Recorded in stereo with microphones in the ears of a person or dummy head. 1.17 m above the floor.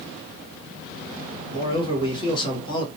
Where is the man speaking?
25° left (ahead or behind), 1.3 m.